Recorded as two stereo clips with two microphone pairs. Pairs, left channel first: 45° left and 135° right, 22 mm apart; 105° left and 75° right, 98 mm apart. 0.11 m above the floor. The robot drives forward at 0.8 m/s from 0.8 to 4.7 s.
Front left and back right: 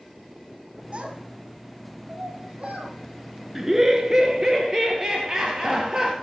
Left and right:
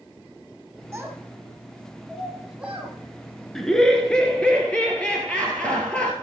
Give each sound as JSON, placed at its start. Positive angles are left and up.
{"t": 0.9, "sound": "a child speaking", "azimuth_deg": -145, "distance_m": 1.4}
{"t": 3.5, "sound": "laughter", "azimuth_deg": -175, "distance_m": 1.1}